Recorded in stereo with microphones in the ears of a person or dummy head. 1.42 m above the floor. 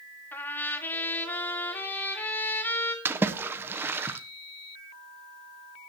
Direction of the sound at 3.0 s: 10° right (ahead or behind).